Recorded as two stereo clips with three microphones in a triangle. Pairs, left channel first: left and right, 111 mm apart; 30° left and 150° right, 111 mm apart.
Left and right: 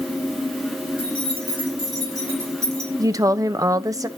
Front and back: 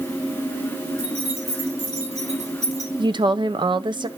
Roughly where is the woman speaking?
Behind right.